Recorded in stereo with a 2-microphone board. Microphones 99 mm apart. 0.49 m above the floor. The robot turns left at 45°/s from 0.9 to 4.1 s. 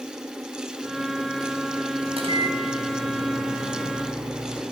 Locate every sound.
2.1 s a microwave: 90° right, 4 m; by 4.6 s straight behind, 4 m